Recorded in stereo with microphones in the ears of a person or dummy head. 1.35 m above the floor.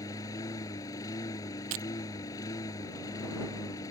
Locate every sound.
0.0 s a lawn mower: 15° left (ahead or behind)
1.7 s breaking glass: 35° right (ahead or behind)